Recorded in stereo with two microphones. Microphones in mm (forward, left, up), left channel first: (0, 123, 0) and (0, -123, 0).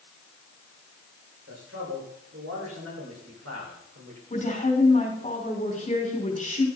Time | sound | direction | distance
1.5 | a man speaking | 60° right (ahead or behind) | 7.5 m
4.3 | a woman speaking | 30° left (ahead or behind) | 5.5 m